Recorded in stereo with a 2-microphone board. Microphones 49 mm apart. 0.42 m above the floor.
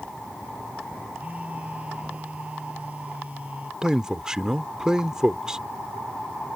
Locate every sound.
1.1 s a phone buzzing: 30° right (ahead or behind)
3.8 s a man speaking: 15° right (ahead or behind)